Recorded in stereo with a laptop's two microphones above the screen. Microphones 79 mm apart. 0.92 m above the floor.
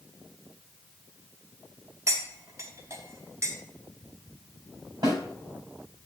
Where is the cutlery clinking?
35° right (ahead or behind), 0.9 m.